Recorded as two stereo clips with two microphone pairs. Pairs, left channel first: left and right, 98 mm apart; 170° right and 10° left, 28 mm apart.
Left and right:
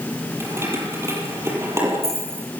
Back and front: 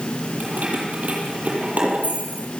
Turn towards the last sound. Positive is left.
turn(degrees=-30)